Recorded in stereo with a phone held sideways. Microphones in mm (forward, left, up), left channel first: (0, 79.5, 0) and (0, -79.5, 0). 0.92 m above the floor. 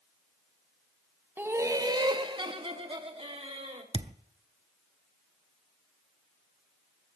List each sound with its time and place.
1.4 s laughter: 10° right (ahead or behind), 0.9 m; by 3.8 s 35° right (ahead or behind), 2.5 m
3.9 s a thud: 35° right (ahead or behind), 0.6 m